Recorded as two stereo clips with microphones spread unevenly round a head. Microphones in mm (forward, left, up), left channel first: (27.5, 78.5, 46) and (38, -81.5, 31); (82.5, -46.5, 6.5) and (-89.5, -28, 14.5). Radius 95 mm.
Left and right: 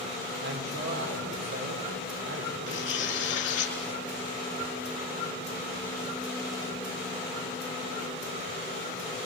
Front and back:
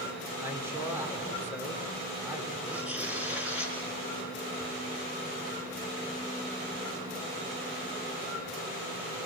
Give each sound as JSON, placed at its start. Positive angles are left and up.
{"t": 0.4, "sound": "a man speaking", "azimuth_deg": -110, "distance_m": 5.0}
{"t": 2.7, "sound": "tearing paper", "azimuth_deg": 90, "distance_m": 4.5}